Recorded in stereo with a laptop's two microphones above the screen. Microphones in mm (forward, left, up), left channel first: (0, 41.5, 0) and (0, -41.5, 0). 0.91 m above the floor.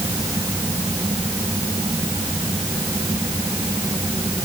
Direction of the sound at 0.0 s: 40° right (ahead or behind).